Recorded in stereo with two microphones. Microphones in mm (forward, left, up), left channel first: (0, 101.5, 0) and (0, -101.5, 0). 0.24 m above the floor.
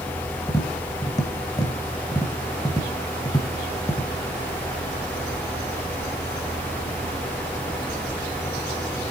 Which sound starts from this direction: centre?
Tapping, at 0.5 s.